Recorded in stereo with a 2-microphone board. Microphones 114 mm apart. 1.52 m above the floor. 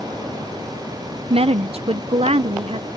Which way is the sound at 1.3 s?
60° right (ahead or behind).